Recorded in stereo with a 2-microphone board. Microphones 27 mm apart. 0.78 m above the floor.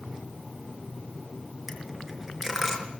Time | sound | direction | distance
1.7 | a dropped coin | 15° right (ahead or behind) | 5 m